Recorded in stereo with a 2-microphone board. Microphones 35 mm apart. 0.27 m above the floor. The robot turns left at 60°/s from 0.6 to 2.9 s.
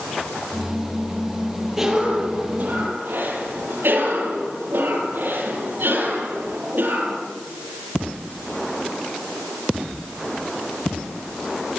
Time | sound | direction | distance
1.8 | a cough | 10° right | 7 m